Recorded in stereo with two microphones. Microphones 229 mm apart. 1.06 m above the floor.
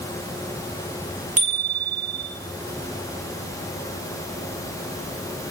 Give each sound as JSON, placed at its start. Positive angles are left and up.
{"t": 1.4, "sound": "a bicycle bell", "side_deg": -35, "distance_m": 9.0}